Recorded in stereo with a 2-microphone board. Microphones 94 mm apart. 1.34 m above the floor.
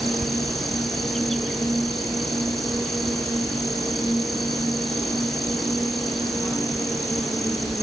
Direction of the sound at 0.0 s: 5° left (ahead or behind).